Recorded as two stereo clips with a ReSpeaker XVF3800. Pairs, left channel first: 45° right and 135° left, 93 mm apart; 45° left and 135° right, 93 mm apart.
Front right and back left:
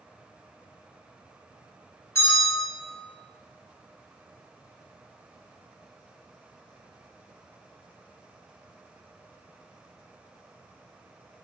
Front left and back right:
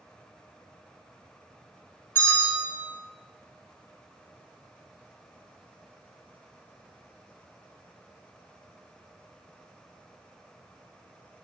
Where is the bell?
Straight ahead, 1.6 m.